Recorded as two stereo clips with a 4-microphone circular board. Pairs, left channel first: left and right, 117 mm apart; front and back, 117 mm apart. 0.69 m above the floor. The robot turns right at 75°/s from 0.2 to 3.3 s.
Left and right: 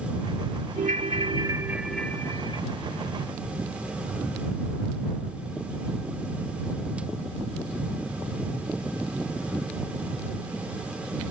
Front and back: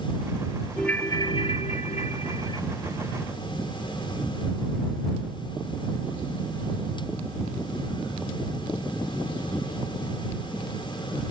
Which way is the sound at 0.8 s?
85° right.